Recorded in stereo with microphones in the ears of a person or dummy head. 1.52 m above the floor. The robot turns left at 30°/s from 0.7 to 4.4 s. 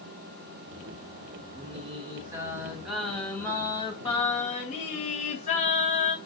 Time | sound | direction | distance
1.5 | singing | 135° right | 1.4 m